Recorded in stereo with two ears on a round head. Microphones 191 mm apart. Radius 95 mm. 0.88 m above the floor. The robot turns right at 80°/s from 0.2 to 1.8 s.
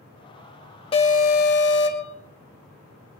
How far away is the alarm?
About 1.7 m.